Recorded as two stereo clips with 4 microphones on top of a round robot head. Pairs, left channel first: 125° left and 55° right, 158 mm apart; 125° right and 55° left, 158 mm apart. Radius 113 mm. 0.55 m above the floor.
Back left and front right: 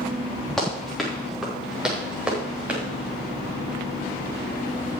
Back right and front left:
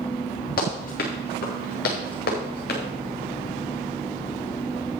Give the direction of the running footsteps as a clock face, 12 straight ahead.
5 o'clock.